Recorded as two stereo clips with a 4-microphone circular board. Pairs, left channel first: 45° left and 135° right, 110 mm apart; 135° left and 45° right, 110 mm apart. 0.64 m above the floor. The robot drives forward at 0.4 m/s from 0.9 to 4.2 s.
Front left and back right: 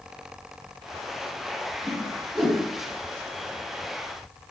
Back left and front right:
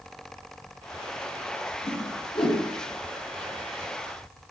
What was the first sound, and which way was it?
A whoosh, 150° left.